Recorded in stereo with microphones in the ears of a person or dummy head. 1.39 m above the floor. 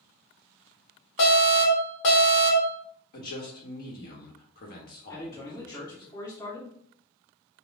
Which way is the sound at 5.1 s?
15° left (ahead or behind).